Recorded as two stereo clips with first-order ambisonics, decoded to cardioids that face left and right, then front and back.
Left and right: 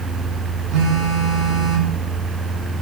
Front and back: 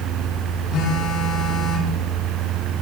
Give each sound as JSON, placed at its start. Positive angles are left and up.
{"t": 0.7, "sound": "a phone buzzing", "azimuth_deg": -55, "distance_m": 7.0}